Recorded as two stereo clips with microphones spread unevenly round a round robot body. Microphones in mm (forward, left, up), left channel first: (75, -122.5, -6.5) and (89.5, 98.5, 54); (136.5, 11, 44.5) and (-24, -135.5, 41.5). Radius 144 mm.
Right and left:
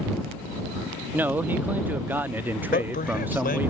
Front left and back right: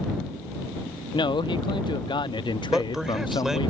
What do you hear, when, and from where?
1.1 s a man speaking: 15° right
2.7 s a man speaking: 50° right